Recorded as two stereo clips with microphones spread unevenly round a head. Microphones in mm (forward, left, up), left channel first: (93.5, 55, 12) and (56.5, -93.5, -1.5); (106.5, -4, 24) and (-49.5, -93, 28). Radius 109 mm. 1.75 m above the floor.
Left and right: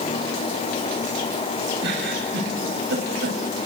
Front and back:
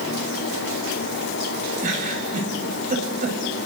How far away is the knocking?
I don't hear knocking.